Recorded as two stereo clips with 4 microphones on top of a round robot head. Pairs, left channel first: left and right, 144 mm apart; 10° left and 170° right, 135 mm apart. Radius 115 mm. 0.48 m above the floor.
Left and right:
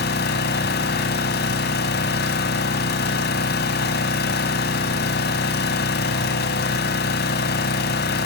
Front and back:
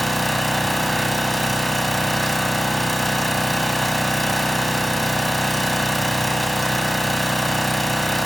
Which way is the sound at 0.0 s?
100° left.